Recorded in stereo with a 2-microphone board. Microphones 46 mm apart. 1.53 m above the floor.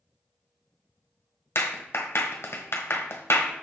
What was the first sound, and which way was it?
A clap, 70° left (ahead or behind).